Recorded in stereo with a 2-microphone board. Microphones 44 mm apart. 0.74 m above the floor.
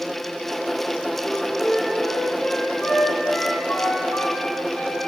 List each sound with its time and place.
1.2 s a flute: 40° left (ahead or behind), 5.5 m